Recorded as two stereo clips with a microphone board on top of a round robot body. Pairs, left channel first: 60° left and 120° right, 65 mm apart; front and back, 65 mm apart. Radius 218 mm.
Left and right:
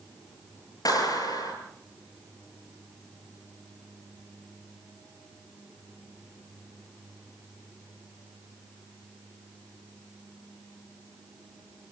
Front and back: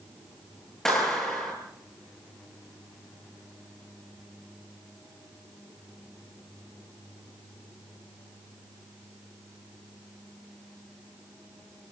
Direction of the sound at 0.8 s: 80° left.